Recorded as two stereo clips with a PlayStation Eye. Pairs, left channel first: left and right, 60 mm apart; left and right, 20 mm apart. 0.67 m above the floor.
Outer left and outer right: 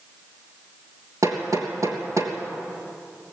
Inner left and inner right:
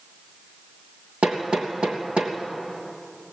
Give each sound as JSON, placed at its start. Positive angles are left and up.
{"t": 1.2, "sound": "hammering", "side_deg": -70, "distance_m": 3.0}